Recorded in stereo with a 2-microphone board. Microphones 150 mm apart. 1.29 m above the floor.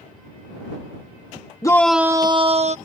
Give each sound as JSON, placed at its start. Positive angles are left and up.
{"t": 1.6, "sound": "a shout", "side_deg": 25}